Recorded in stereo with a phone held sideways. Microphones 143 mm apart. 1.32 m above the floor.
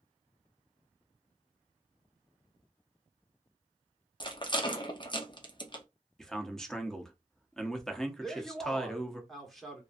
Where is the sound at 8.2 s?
Centre (ahead or behind), 1.2 m.